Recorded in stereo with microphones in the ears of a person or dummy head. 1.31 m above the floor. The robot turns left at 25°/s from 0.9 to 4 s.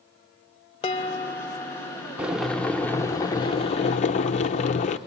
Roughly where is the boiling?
Behind.